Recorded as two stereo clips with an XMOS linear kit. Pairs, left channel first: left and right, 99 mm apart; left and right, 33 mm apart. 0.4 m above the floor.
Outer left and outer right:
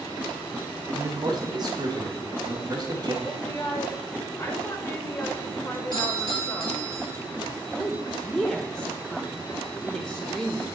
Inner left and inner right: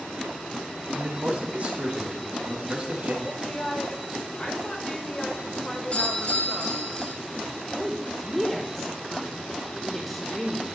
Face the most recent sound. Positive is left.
turn(degrees=10)  # may be behind; listen again after turning